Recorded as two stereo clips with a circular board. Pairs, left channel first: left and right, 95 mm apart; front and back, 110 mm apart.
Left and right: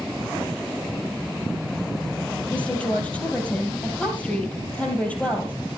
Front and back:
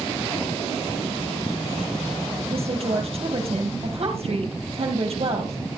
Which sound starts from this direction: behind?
A woman speaking, at 2.5 s.